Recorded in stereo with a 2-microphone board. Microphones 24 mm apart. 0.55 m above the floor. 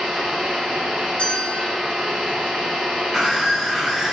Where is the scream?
25° right (ahead or behind), 1.7 m.